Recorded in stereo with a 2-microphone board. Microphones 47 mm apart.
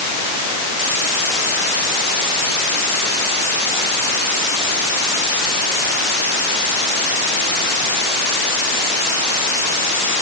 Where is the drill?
No drill in this recording.